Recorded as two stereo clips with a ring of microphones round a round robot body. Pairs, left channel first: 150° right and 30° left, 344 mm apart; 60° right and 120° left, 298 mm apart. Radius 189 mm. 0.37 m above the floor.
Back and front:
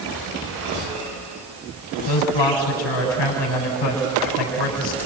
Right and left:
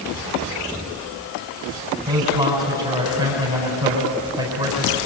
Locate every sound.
2.1 s a man speaking: 160° right, 4 m